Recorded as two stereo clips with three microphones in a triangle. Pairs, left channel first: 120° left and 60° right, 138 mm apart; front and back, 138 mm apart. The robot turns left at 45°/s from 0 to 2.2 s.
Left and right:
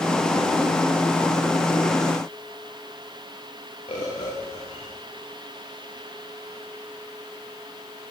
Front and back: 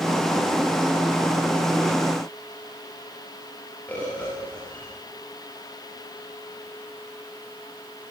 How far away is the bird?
About 9.5 m.